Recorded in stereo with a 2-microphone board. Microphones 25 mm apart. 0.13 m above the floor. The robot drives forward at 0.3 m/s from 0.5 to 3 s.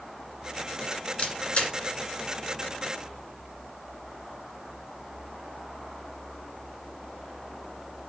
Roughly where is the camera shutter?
Left.